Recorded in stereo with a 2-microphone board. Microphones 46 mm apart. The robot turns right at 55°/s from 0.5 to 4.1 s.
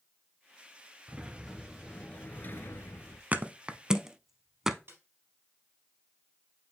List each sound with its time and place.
1.1 s a sliding door: 25° right, 0.9 m; by 3.2 s 90° left, 0.9 m
3.3 s a thud: 35° right (ahead or behind), 0.6 m; by 4.8 s 10° right (ahead or behind), 0.6 m
4.9 s a snare drum: 60° right (ahead or behind), 3.5 m